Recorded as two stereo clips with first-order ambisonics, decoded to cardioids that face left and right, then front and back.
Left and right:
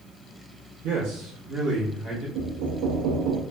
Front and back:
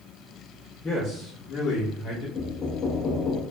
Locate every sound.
0.8 s a man speaking: 80° right, 0.8 m; by 2.2 s 25° right, 1.0 m
2.4 s knocking: 70° right, 0.5 m